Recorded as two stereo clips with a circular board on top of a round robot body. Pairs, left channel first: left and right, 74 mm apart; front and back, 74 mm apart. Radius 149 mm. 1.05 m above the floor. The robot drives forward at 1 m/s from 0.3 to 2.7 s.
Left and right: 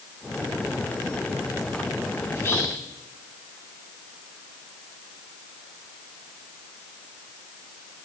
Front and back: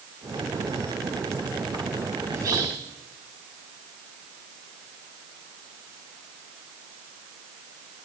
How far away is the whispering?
About 2.5 m.